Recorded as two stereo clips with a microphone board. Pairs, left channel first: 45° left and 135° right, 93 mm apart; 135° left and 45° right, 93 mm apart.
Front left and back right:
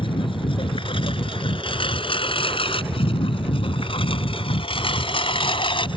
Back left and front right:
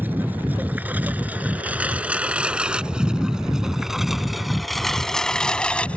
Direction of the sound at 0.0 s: 25° left.